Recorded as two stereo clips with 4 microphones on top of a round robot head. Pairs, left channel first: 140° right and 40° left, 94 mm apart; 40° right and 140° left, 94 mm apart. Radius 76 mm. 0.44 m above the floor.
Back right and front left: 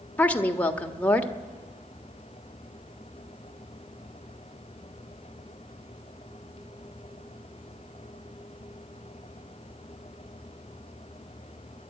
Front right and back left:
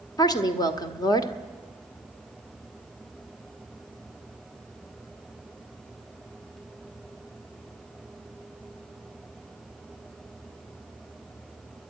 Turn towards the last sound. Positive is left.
turn(degrees=-70)